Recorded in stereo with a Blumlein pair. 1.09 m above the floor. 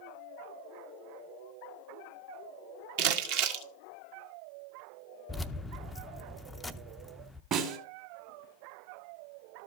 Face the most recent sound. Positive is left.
turn(degrees=-35)